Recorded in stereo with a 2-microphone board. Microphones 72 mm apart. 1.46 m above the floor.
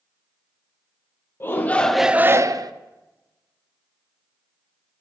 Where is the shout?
30° left (ahead or behind), 0.8 m; by 2.7 s 65° right (ahead or behind), 0.7 m.